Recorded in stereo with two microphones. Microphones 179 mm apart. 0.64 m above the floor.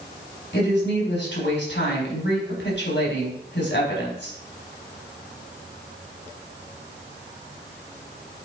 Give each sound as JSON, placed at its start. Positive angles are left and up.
{"t": 0.5, "sound": "a woman speaking", "side_deg": 80, "distance_m": 4.0}